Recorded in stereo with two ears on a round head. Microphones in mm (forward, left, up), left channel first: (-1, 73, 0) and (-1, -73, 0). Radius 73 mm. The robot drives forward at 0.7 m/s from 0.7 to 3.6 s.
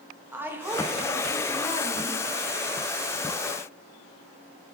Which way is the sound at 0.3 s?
15° right (ahead or behind).